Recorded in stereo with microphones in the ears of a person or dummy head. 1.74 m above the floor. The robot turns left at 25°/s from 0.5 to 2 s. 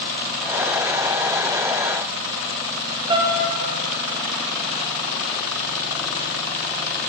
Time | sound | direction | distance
3.1 | a piano | 25° right (ahead or behind) | 0.8 m